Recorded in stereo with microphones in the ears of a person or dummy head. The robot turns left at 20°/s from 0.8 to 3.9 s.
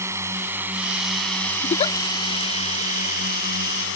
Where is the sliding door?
I don't hear a sliding door.